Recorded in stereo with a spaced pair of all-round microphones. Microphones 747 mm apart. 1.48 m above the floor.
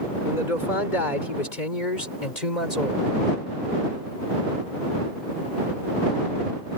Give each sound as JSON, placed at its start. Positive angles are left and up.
{"t": 0.2, "sound": "a man speaking", "side_deg": 85}